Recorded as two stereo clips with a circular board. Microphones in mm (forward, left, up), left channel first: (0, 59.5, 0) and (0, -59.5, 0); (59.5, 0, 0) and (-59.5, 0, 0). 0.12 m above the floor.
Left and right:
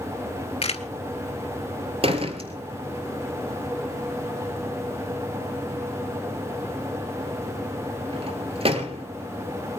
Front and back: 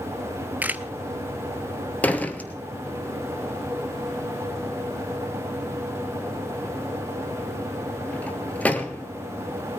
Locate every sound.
0.6 s a camera shutter: 105° left, 0.8 m
2.0 s a door slam: 75° right, 1.4 m